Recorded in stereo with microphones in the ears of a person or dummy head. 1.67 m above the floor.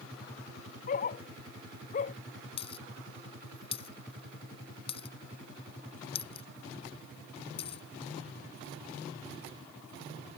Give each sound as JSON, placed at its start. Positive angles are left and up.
{"t": 0.9, "sound": "a dog barking", "side_deg": 50}
{"t": 2.6, "sound": "a dropped coin", "side_deg": 30}